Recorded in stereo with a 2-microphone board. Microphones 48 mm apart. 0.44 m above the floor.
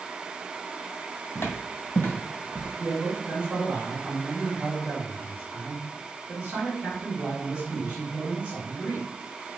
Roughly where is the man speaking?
Right.